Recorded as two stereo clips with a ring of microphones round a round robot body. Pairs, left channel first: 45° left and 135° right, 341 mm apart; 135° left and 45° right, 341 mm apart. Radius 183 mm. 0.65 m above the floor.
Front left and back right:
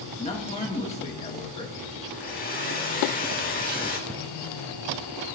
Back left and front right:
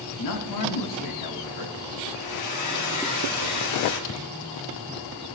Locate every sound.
0.2 s a man speaking: 115° left, 1.3 m
2.1 s a hair dryer: 105° left, 1.6 m
4.1 s footsteps: 125° left, 0.7 m